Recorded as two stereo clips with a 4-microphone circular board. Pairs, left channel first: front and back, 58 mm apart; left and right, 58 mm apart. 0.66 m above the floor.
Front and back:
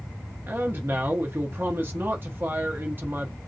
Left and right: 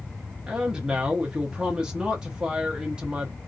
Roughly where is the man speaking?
Behind right.